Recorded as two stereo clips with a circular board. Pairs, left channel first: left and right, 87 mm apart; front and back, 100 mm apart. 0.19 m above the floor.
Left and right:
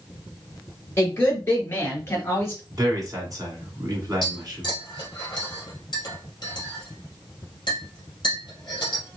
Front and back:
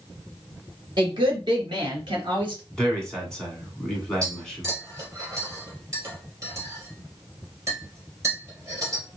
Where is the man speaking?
80° right, 1.7 m.